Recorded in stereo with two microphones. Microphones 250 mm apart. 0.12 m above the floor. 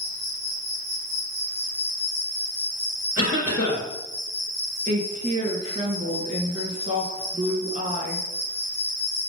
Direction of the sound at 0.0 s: 55° right (ahead or behind).